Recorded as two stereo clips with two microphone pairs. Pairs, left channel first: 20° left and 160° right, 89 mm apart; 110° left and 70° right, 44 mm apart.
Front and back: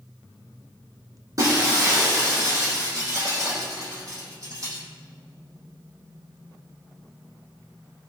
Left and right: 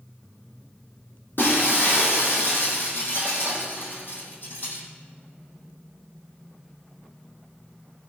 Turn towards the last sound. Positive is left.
turn(degrees=150)